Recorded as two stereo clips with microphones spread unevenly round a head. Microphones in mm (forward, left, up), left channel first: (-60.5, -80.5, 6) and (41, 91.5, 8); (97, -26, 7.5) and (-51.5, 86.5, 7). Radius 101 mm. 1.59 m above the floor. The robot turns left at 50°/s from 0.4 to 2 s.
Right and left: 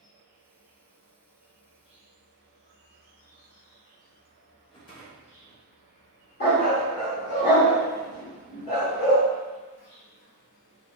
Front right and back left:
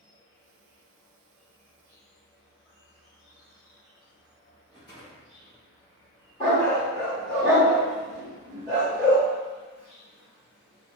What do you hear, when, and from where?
0.0 s an insect: 35° right, 1.6 m; by 11.0 s 115° right, 1.6 m
4.7 s a rattle: 85° right, 0.9 m
6.4 s a dog barking: 95° right, 1.6 m